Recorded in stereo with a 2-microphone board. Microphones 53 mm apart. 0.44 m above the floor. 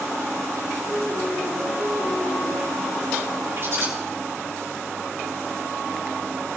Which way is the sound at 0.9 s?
80° left.